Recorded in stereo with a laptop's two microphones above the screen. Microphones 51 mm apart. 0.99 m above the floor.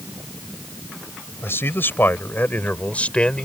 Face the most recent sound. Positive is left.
turn(degrees=20)  # may be behind; listen again after turning